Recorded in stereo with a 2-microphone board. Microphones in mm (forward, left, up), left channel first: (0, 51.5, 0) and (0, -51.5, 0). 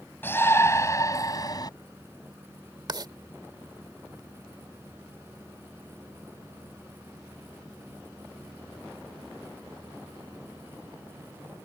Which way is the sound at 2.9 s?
45° right (ahead or behind).